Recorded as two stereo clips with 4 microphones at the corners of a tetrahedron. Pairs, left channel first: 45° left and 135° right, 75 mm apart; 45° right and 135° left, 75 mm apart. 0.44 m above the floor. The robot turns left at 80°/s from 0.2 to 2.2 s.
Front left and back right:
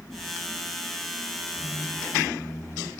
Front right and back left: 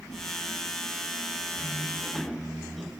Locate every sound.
1.6 s a squeak: 155° left, 1.3 m; by 2.9 s 105° left, 1.3 m